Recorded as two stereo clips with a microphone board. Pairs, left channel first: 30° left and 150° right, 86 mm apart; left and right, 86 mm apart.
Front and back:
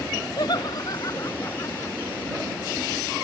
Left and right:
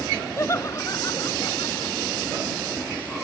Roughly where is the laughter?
Ahead left.